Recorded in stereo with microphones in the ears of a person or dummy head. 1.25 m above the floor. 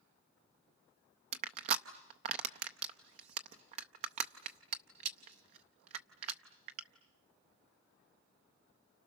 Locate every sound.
1.3 s crushing: 35° right (ahead or behind), 0.6 m